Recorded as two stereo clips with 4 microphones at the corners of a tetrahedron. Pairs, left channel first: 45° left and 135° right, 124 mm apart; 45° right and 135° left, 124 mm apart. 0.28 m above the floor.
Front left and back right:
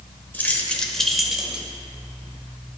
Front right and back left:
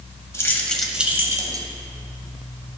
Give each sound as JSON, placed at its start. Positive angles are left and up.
{"t": 0.3, "sound": "keys jangling", "azimuth_deg": -15, "distance_m": 0.7}